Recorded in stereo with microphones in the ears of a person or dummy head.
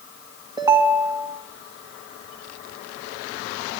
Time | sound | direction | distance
0.6 | a ringtone | 25° right (ahead or behind) | 1.7 m